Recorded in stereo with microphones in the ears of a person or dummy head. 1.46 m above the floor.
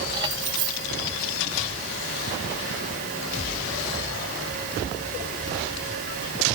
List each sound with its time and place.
0.1 s keys jangling: 25° right (ahead or behind)